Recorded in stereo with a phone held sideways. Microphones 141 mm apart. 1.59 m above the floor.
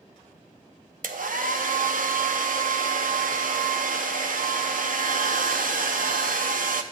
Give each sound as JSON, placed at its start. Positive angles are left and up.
{"t": 1.0, "sound": "a hair dryer", "side_deg": -75, "distance_m": 0.6}